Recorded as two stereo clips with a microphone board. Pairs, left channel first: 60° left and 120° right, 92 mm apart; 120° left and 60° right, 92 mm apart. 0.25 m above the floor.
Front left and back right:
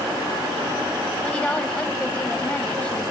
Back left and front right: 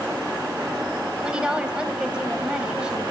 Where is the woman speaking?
5° left, 1.1 m.